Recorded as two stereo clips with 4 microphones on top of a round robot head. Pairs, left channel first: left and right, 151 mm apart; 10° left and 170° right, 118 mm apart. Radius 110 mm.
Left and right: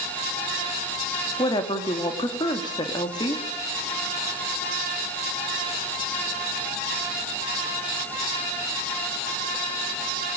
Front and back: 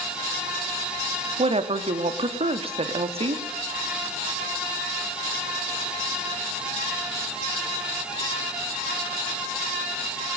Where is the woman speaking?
155° left, 2.5 m.